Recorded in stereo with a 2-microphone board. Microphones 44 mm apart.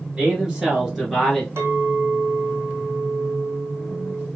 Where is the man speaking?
25° right (ahead or behind), 1.5 m; by 1.5 s 5° left (ahead or behind), 1.5 m.